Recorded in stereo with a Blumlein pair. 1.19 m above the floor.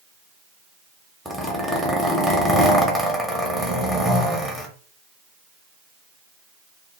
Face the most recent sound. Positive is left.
turn(degrees=0)